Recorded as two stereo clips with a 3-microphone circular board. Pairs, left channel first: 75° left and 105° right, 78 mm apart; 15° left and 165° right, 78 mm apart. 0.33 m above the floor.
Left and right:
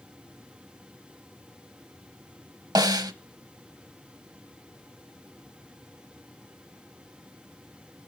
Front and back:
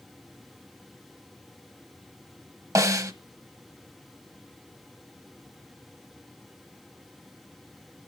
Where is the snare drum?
125° right, 0.8 m.